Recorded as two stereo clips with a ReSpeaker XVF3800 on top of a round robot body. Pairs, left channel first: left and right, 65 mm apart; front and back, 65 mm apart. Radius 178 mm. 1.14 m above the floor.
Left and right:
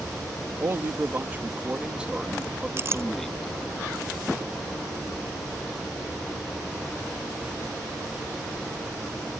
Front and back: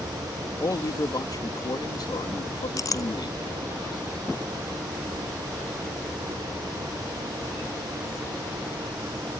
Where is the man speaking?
40° right; by 3.5 s 5° left.